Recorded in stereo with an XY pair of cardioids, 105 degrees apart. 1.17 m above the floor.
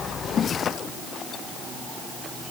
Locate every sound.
Only background noise.